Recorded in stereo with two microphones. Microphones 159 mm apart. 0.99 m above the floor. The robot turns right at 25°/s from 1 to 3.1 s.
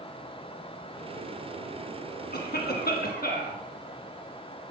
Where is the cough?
70° left (ahead or behind), 1.5 m; by 3.6 s 65° left (ahead or behind), 1.5 m.